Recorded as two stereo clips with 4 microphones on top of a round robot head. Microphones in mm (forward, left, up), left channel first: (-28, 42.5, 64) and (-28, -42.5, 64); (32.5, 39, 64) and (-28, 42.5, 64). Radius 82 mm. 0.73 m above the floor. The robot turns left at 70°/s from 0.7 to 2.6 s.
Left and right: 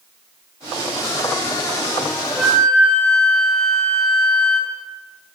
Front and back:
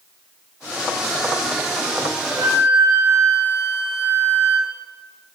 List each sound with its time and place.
2.3 s a flute: 170° right, 4.5 m; by 4.7 s 170° left, 4.5 m